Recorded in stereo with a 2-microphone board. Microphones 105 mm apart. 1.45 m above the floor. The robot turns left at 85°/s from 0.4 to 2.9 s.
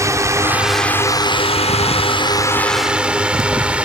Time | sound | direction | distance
0.0 | a drone | 30° right (ahead or behind) | ?